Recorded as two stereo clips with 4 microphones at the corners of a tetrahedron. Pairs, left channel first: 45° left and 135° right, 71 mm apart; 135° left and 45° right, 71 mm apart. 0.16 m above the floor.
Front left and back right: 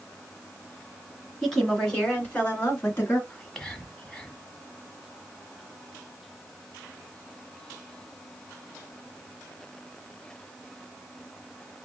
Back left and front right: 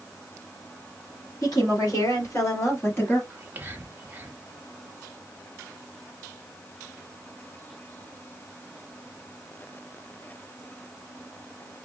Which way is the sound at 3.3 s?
25° right.